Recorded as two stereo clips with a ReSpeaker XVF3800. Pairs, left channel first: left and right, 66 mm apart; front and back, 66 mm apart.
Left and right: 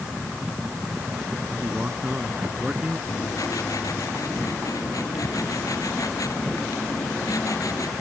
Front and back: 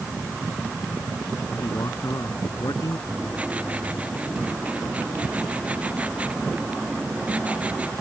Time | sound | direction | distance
1.6 | a man speaking | 25° right | ?
3.1 | writing | 110° left | ?